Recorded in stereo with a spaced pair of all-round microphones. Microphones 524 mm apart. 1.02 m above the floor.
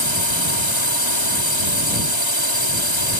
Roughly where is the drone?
Left.